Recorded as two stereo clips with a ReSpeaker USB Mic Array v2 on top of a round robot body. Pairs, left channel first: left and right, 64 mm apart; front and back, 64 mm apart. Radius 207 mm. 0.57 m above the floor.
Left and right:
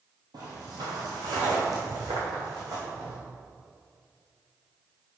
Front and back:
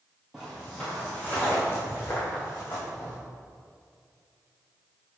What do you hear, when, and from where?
0.3 s footsteps: 95° right, 0.8 m; by 3.1 s 55° right, 2.5 m